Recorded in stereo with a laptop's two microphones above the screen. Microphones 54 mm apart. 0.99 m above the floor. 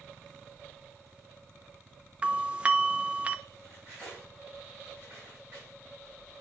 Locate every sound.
2.2 s a doorbell: 20° right (ahead or behind), 0.7 m
3.6 s cutlery clinking: 30° right (ahead or behind), 5.5 m